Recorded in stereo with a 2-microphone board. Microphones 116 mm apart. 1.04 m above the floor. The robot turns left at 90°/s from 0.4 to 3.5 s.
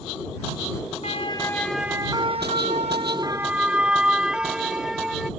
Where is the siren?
65° left (ahead or behind); by 5.3 s 5° right (ahead or behind).